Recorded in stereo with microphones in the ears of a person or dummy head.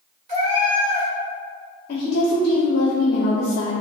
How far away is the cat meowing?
About 1.3 m.